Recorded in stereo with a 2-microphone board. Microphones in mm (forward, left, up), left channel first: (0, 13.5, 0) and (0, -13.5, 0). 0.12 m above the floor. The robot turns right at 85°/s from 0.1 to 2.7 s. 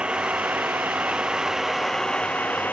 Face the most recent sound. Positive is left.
turn(degrees=80)